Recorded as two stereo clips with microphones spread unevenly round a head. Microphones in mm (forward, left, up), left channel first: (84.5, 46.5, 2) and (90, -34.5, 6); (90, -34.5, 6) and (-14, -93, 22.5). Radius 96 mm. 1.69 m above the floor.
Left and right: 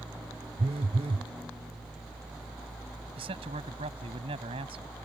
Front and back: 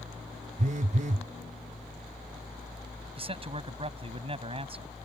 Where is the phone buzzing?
125° right.